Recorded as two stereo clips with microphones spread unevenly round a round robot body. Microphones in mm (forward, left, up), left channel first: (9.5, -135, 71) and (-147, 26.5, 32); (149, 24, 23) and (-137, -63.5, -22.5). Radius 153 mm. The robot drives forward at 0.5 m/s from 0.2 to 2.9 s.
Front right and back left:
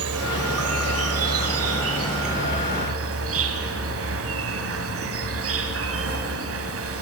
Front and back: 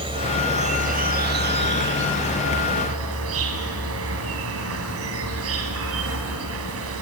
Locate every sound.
0.0 s an insect: 125° left, 1.4 m; by 7.0 s 150° left, 2.5 m